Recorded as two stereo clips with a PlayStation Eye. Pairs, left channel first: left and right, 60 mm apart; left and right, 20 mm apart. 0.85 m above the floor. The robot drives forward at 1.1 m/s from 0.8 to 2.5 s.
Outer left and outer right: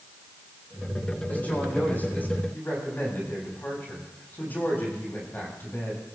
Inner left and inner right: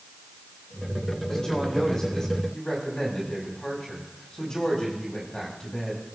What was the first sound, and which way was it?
A woman speaking, 30° left (ahead or behind).